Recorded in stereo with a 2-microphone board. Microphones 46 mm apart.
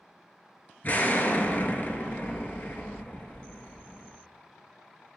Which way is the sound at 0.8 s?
40° left (ahead or behind).